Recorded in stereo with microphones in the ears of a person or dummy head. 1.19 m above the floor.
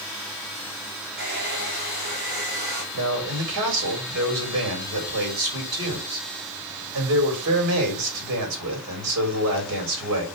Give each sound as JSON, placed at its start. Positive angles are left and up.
{"t": 1.2, "sound": "a hair dryer", "side_deg": -55, "distance_m": 4.0}
{"t": 2.9, "sound": "a man speaking", "side_deg": -85, "distance_m": 4.5}